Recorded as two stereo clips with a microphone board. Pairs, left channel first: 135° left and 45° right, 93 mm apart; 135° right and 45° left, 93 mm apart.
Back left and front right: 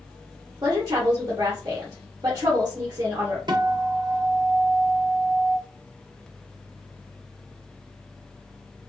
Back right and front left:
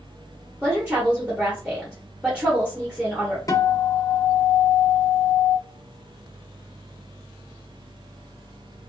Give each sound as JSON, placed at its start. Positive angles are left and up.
{"t": 0.6, "sound": "a woman speaking", "azimuth_deg": -25, "distance_m": 0.8}
{"t": 3.5, "sound": "a guitar", "azimuth_deg": -80, "distance_m": 0.5}